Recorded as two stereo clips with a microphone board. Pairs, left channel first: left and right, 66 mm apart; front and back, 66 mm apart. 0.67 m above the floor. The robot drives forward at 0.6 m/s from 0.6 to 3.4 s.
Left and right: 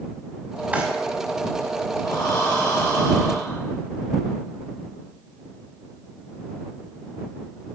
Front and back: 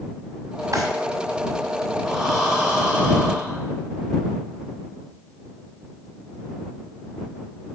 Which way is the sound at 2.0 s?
95° left.